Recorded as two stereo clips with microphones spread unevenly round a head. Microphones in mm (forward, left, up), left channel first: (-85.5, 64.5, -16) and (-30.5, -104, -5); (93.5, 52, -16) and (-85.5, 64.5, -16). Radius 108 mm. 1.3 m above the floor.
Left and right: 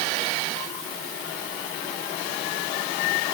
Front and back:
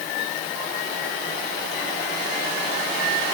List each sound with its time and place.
Only background noise.